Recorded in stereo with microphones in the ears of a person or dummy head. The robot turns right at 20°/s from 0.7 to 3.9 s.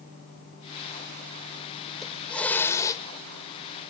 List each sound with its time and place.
1.9 s a hiss: centre (ahead or behind); by 3.0 s 20° left (ahead or behind)